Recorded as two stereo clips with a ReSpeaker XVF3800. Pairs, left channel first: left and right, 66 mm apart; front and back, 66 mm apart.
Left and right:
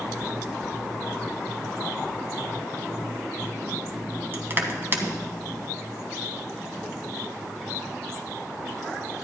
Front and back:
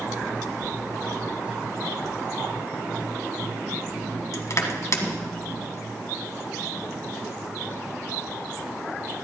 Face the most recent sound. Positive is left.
turn(degrees=-35)